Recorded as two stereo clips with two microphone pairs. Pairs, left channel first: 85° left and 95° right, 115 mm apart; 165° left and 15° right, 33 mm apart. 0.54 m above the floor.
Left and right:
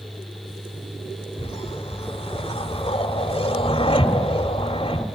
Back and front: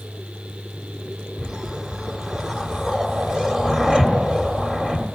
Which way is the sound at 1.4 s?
55° left.